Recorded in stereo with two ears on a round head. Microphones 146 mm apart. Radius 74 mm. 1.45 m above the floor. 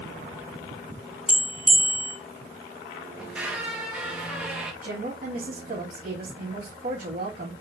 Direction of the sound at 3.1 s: 5° right (ahead or behind).